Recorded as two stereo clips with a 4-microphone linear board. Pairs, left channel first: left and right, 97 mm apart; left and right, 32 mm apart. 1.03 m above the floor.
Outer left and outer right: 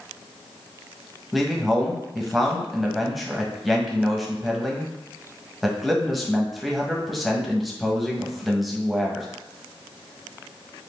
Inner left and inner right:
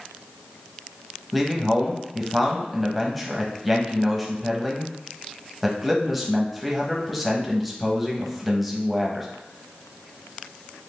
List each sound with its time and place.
1.3 s a man speaking: centre (ahead or behind), 0.8 m